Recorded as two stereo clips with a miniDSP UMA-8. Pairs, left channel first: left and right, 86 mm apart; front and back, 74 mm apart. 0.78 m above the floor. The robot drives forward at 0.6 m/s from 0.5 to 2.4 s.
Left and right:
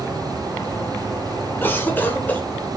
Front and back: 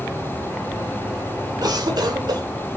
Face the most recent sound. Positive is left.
turn(degrees=160)